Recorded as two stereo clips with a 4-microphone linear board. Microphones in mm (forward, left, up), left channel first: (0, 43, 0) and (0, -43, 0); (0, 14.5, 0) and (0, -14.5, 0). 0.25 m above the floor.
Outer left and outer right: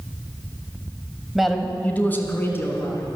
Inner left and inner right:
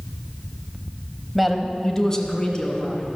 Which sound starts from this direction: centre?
A man speaking, at 1.4 s.